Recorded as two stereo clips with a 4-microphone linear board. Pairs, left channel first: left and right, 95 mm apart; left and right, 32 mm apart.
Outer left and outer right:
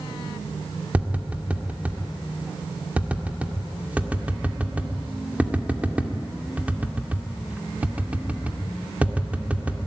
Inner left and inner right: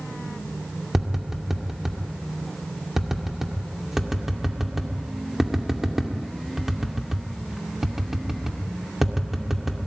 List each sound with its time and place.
0.9 s tapping: 15° right (ahead or behind), 2 m